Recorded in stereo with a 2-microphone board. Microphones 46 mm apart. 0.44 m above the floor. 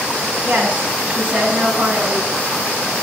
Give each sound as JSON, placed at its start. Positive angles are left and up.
{"t": 0.4, "sound": "a woman speaking", "side_deg": -25, "distance_m": 3.0}